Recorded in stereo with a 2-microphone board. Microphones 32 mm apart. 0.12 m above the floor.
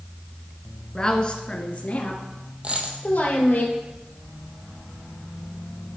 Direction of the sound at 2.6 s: 35° right (ahead or behind).